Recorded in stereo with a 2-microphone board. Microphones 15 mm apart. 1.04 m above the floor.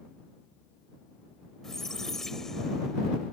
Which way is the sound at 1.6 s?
25° left (ahead or behind).